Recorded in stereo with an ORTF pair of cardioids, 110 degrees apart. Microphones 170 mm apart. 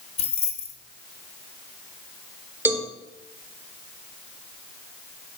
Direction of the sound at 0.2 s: 40° left.